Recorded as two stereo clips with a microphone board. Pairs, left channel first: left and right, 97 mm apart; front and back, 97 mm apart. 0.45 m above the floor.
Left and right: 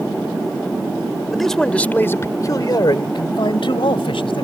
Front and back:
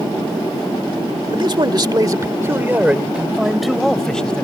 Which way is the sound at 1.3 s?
Straight behind.